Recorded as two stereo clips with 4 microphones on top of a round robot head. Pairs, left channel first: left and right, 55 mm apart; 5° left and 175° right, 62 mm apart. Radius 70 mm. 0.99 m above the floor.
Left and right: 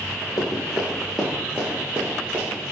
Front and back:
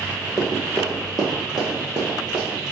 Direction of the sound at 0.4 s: 120° left.